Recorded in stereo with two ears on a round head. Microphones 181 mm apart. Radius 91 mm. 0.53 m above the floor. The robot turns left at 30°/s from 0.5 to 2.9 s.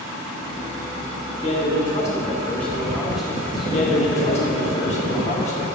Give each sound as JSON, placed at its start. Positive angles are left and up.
{"t": 1.4, "sound": "a man speaking", "azimuth_deg": 45, "distance_m": 1.5}
{"t": 3.7, "sound": "a man speaking", "side_deg": 35, "distance_m": 1.1}